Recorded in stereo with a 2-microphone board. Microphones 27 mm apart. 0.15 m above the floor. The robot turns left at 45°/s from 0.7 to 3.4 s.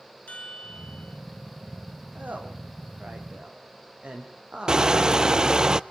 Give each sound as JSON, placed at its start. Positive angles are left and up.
{"t": 0.3, "sound": "a chime", "side_deg": 55, "distance_m": 3.0}
{"t": 2.1, "sound": "a woman speaking", "side_deg": -80, "distance_m": 6.0}
{"t": 4.7, "sound": "crushing", "side_deg": -30, "distance_m": 0.6}